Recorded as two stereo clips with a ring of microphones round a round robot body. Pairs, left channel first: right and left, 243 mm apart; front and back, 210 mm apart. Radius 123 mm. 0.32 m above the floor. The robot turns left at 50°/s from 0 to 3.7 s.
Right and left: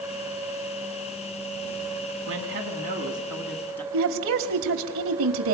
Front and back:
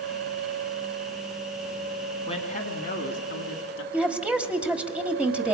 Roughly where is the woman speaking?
Left.